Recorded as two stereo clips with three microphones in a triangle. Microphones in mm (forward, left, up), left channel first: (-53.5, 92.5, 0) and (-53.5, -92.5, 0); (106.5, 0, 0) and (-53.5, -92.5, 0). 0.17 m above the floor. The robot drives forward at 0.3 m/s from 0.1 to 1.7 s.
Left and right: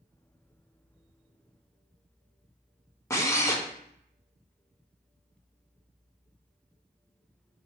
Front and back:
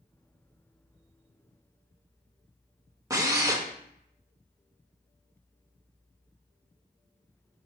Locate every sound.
3.1 s a drill: 155° left, 0.5 m